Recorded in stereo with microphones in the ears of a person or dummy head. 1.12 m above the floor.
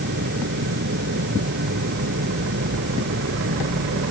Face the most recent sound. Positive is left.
turn(degrees=-55)  # may be behind; listen again after turning